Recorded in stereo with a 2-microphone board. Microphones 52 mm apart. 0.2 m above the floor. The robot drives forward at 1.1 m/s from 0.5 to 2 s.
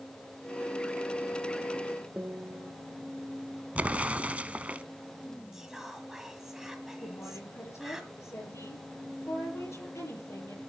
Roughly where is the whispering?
Centre.